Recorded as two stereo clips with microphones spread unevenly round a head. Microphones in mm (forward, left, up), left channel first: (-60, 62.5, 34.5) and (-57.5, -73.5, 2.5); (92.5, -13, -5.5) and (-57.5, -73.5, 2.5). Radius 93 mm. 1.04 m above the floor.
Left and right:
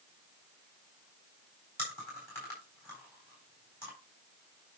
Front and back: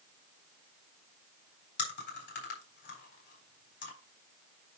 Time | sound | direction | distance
1.8 | chewing | 10° left | 4 m